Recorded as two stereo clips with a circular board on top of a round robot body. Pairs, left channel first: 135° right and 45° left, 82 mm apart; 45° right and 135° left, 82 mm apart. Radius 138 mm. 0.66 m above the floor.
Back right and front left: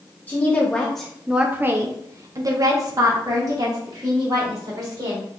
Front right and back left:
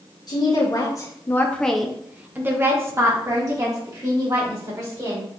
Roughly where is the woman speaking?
Right.